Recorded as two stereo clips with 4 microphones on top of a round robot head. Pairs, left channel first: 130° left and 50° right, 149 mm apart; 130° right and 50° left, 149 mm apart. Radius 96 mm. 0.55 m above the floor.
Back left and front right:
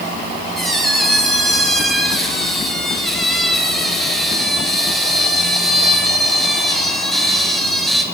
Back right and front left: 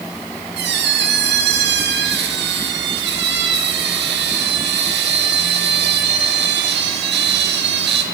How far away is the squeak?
About 1.4 m.